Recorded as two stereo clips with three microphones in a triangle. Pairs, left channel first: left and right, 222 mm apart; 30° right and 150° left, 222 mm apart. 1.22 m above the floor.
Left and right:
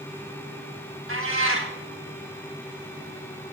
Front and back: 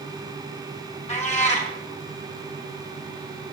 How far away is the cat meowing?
About 2 m.